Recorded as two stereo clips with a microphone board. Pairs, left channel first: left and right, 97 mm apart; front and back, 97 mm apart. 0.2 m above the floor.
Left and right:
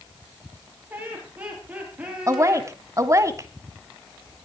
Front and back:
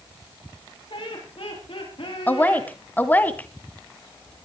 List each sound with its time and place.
0.9 s laughter: 20° right, 6.5 m; by 2.7 s 10° right, 7 m
2.3 s a woman speaking: 60° right, 1.2 m